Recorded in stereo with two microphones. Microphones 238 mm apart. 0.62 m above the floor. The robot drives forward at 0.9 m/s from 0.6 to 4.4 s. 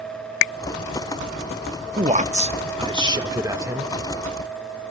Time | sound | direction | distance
2.0 | a man speaking | 30° right (ahead or behind) | 0.7 m